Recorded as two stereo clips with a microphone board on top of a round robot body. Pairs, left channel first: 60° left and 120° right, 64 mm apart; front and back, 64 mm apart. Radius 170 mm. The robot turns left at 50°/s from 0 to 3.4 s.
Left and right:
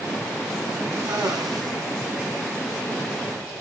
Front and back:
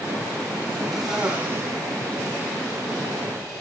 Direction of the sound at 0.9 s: 90° right.